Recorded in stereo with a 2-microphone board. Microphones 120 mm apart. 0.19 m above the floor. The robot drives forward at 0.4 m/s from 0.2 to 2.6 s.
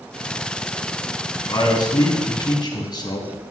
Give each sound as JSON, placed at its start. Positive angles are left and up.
{"t": 1.5, "sound": "a man speaking", "side_deg": 35, "distance_m": 2.0}